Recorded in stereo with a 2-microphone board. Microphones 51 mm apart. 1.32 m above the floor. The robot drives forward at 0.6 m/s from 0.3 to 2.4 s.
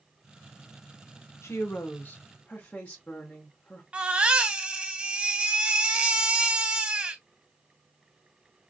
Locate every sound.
1.4 s a woman speaking: 60° left (ahead or behind), 0.6 m; by 3.8 s 30° left (ahead or behind), 1.0 m
3.9 s a baby crying: 25° right (ahead or behind), 0.6 m